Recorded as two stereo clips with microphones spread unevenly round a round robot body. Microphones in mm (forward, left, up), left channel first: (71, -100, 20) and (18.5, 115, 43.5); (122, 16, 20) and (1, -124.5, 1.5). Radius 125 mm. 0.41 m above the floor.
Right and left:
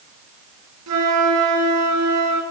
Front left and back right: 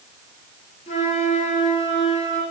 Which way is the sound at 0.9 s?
115° left.